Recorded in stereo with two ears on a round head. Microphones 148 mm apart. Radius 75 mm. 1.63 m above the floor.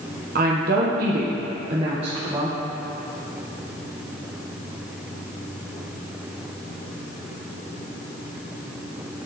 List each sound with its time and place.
0.3 s a woman speaking: 55° right (ahead or behind), 0.8 m; by 2.6 s 20° right (ahead or behind), 1.0 m